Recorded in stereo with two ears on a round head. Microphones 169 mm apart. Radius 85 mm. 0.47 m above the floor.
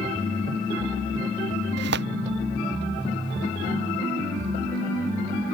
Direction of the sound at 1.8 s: 65° right (ahead or behind).